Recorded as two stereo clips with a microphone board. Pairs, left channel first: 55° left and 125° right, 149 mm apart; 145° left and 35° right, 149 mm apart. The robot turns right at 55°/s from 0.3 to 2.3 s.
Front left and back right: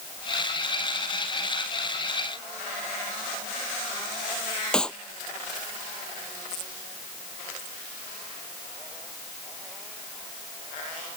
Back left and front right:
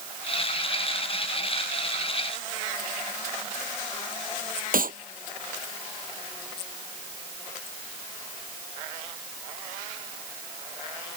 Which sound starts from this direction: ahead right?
A clap, at 4.7 s.